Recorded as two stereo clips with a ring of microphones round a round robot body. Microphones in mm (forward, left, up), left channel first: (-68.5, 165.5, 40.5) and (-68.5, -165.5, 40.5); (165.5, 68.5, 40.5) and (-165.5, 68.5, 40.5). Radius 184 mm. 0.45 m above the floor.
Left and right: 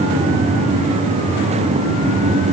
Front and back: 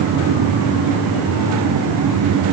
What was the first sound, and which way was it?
Only background noise.